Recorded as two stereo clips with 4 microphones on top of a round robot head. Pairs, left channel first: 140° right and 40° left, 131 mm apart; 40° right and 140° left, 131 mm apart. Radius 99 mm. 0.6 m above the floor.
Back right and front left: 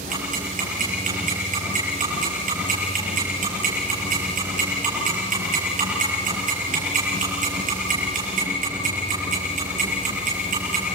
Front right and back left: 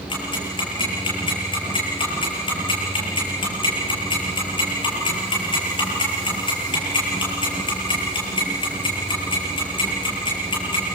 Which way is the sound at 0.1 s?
15° left.